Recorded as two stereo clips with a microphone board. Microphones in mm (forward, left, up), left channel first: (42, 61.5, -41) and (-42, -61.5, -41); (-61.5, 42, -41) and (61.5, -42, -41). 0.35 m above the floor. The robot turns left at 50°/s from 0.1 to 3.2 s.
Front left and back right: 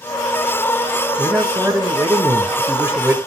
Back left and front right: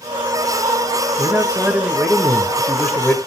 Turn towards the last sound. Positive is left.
turn(degrees=180)